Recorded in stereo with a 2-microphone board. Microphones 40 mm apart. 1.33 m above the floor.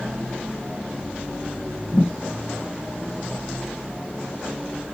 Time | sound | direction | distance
1.9 | a thud | 55° left (ahead or behind) | 2.5 m